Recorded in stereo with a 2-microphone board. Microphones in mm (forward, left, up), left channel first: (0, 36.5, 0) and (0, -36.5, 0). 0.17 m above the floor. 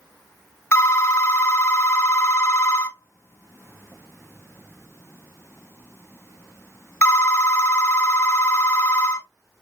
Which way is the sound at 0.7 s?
40° left (ahead or behind).